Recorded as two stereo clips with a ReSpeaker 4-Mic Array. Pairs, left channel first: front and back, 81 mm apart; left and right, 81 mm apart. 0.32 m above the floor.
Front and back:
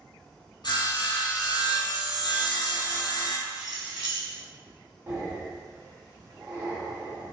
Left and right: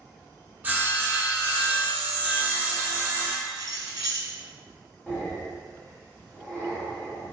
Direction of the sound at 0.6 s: 20° right.